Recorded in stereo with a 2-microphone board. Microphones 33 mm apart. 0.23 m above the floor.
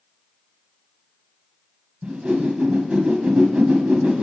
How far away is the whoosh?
About 1.0 m.